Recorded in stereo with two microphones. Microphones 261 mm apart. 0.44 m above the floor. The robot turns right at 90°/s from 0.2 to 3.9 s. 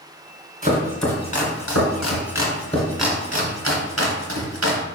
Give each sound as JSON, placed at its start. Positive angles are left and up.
{"t": 0.6, "sound": "chopping", "side_deg": -35, "distance_m": 1.9}